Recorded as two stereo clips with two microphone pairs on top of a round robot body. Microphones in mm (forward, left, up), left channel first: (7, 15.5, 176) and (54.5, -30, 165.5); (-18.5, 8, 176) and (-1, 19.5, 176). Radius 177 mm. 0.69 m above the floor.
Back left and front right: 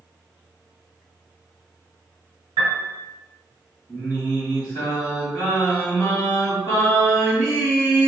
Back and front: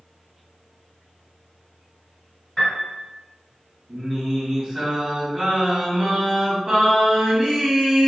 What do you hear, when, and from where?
2.6 s a piano: 60° right, 1.2 m
3.9 s singing: 90° left, 2.0 m